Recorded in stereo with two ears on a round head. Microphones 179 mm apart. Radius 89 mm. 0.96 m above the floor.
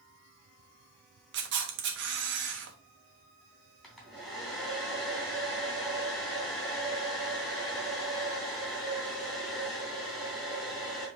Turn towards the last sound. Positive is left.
turn(degrees=0)  # may be behind; listen again after turning